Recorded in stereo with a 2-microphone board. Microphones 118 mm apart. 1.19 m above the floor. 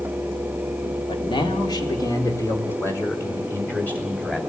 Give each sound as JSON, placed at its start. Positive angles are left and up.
{"t": 1.1, "sound": "a man speaking", "side_deg": 45, "distance_m": 2.5}